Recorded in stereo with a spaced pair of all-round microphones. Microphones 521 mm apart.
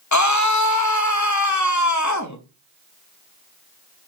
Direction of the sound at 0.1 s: 35° left (ahead or behind).